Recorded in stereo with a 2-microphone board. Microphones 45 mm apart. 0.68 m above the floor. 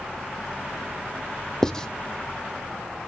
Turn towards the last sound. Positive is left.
turn(degrees=15)  # may be behind; listen again after turning